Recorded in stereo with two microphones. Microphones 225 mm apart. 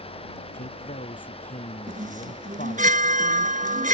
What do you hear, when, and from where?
0.5 s a man speaking: 35° left (ahead or behind)
1.9 s a chime: 35° right (ahead or behind)